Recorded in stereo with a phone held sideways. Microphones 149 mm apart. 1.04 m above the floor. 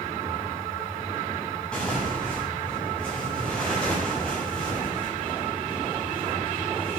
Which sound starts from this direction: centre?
Tearing paper, at 1.7 s.